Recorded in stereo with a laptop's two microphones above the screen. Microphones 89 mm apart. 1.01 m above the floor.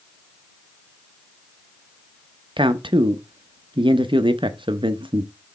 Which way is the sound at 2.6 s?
70° right (ahead or behind).